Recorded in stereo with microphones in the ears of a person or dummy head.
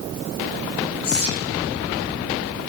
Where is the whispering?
90° left, 7.5 m.